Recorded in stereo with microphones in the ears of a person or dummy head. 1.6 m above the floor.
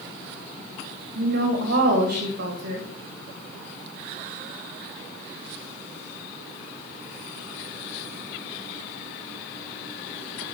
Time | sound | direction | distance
1.1 | a woman speaking | 60° right (ahead or behind) | 2 m